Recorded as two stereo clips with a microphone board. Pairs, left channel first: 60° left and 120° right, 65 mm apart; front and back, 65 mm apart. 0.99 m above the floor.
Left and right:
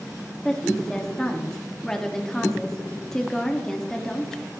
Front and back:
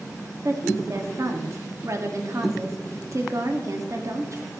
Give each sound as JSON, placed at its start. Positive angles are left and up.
{"t": 0.5, "sound": "a woman speaking", "azimuth_deg": 140, "distance_m": 1.8}